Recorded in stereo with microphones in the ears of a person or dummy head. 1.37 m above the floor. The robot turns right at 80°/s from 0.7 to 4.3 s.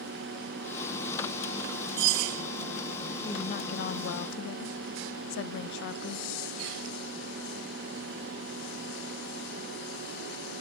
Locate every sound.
3.2 s a woman speaking: 20° left, 0.7 m; by 6.3 s 105° left, 0.7 m